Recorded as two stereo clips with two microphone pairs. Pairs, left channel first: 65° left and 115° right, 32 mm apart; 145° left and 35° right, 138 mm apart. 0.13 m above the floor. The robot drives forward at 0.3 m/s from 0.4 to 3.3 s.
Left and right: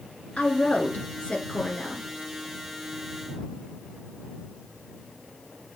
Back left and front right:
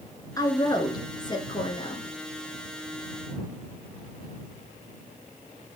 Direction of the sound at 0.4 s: 90° left.